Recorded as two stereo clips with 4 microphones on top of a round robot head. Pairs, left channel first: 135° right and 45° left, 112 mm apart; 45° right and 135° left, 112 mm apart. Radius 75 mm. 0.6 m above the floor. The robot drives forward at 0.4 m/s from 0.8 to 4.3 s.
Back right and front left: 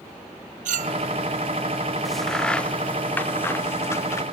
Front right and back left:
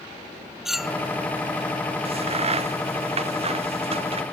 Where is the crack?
135° left; by 4.2 s 160° left.